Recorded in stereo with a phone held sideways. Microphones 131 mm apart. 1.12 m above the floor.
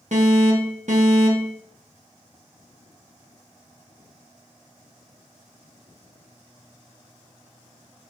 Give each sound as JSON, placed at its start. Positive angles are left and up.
{"t": 0.1, "sound": "an alarm", "side_deg": -65, "distance_m": 2.5}